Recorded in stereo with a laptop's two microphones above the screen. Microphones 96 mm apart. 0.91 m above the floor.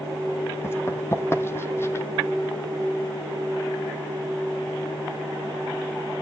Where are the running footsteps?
25° left (ahead or behind), 1.9 m.